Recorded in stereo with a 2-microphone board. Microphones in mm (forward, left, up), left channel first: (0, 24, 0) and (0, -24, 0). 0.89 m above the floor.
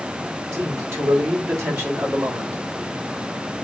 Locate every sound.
0.5 s a man speaking: 70° right (ahead or behind), 3 m; by 2.6 s 50° right (ahead or behind), 1.9 m